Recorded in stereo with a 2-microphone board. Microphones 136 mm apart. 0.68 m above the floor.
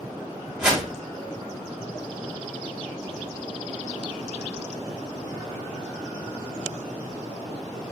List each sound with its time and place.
0.6 s a whoosh: 5° right (ahead or behind), 1.2 m